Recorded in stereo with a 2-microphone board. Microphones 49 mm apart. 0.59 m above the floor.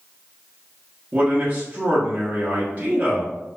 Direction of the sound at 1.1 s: 35° right (ahead or behind).